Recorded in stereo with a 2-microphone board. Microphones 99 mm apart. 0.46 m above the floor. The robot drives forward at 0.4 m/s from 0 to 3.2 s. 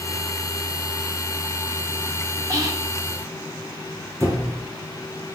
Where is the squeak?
30° right (ahead or behind), 3 m.